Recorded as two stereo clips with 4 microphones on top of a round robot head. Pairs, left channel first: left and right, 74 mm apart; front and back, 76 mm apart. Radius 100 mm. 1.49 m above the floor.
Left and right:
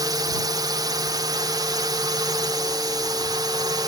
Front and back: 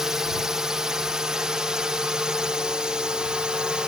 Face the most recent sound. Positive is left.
turn(degrees=-100)